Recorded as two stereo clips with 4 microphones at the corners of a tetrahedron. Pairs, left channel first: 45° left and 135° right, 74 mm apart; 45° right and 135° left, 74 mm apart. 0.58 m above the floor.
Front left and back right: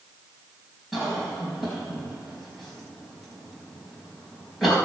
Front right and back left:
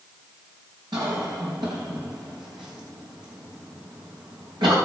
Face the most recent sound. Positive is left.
turn(degrees=135)